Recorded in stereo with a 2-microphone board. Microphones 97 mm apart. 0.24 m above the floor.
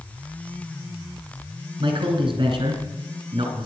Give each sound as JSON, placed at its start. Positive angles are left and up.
{"t": 1.8, "sound": "a man speaking", "side_deg": -55, "distance_m": 2.5}